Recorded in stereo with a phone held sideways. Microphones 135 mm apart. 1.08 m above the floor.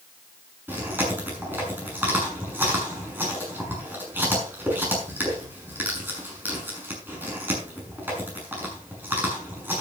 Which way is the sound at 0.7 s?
15° right (ahead or behind).